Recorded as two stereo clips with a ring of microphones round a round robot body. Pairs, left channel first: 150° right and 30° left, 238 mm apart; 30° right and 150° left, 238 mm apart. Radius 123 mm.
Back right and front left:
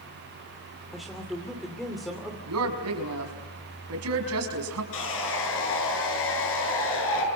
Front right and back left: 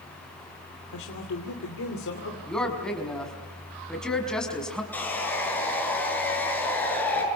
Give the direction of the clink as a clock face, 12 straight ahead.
I don't hear a clink.